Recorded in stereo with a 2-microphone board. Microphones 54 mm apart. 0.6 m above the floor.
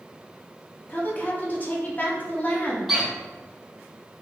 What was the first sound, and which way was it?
A woman speaking, 30° left (ahead or behind).